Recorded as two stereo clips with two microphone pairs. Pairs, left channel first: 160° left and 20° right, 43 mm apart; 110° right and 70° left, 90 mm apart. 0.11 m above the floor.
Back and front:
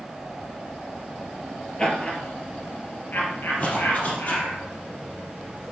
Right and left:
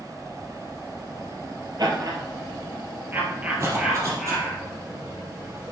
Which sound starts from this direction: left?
Laughter, at 1.8 s.